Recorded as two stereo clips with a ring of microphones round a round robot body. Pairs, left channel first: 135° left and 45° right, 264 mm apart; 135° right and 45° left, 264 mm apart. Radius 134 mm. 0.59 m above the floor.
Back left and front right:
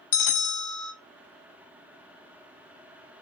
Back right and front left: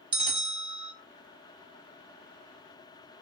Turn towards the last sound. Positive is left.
turn(degrees=115)